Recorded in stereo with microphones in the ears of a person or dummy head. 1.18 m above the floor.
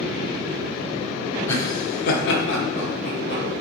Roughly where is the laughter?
Centre.